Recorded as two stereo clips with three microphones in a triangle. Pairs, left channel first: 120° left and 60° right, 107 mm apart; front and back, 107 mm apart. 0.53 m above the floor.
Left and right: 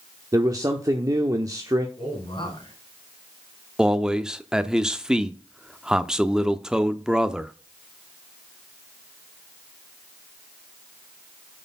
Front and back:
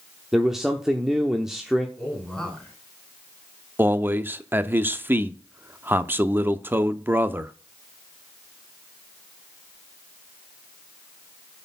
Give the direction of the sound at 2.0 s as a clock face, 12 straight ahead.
9 o'clock.